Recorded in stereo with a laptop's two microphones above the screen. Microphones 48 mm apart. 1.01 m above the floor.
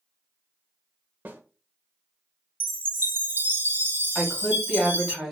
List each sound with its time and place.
1.2 s a snare drum: 35° right (ahead or behind), 0.6 m
2.6 s a chime: 45° right (ahead or behind), 1.0 m
4.2 s a woman speaking: 10° left (ahead or behind), 1.8 m